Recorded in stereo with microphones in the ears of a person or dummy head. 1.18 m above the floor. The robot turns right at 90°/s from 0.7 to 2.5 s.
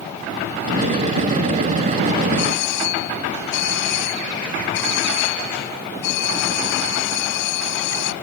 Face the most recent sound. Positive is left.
turn(degrees=70)  # may be behind; listen again after turning